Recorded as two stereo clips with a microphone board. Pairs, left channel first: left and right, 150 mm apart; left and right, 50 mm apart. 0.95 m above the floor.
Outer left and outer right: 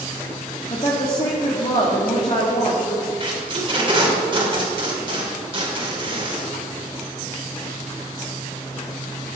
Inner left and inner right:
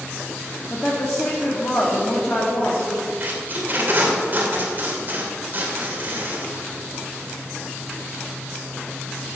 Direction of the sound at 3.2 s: 35° right (ahead or behind).